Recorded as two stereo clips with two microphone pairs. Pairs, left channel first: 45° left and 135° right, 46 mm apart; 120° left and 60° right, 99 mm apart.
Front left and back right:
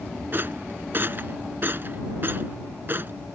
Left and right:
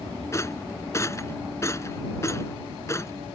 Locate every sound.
0.3 s a rattle: straight behind